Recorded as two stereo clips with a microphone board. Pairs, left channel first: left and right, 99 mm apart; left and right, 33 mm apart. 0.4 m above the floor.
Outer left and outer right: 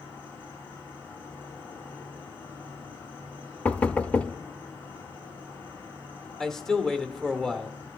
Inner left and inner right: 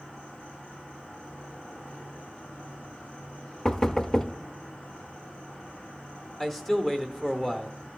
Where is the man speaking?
5° left (ahead or behind), 0.8 m.